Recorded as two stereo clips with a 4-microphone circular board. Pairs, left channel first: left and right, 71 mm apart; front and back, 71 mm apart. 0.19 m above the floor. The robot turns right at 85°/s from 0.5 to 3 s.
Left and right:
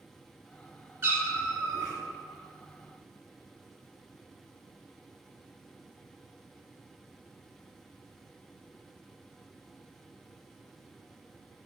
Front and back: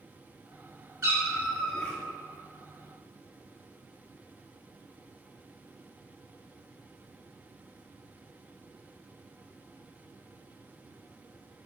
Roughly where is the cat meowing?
Behind right.